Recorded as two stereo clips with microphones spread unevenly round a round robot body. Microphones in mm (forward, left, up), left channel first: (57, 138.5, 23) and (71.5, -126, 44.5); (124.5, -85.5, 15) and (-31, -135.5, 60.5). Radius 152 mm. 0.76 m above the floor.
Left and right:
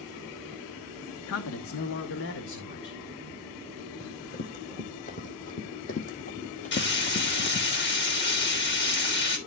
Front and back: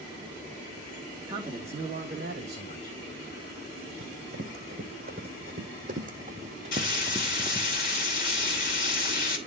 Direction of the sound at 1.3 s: 115° left.